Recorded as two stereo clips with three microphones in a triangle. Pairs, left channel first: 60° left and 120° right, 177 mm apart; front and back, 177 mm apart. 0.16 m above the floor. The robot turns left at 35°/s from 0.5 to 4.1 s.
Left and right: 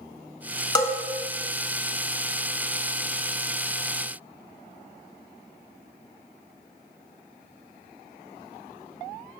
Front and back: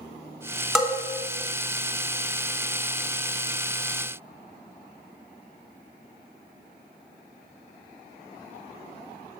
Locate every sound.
0.8 s a bell: 95° left, 0.7 m; by 0.9 s 85° left, 0.7 m